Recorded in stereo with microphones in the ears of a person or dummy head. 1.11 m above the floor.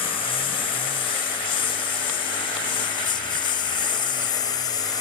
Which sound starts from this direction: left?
A lawn mower, at 0.0 s.